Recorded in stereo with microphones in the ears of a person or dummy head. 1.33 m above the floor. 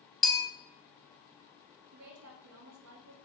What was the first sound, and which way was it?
A bell, centre (ahead or behind).